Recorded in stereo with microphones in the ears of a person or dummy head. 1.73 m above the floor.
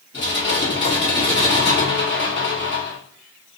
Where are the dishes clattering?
55° left (ahead or behind), 1.4 m.